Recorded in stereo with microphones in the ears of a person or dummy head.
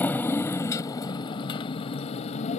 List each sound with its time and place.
0.0 s a motorcycle: 10° left (ahead or behind); by 2.6 s 35° left (ahead or behind)